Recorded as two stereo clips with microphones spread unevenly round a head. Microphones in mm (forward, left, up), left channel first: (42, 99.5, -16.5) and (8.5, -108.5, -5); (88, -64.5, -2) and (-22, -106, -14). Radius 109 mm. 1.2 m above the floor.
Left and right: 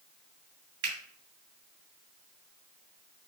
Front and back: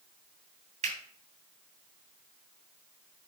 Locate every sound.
0.8 s a finger snap: 140° right, 3 m